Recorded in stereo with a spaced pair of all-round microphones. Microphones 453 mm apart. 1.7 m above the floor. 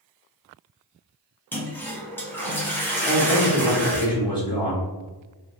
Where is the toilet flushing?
5° left (ahead or behind), 0.8 m.